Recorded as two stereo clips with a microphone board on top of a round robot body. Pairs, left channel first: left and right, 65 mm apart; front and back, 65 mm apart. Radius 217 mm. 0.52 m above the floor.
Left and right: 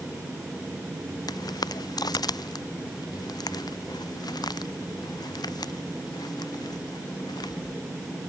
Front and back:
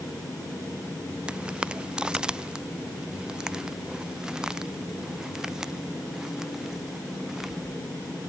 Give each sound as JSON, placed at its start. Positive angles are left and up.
{"t": 1.3, "sound": "footsteps", "azimuth_deg": 105}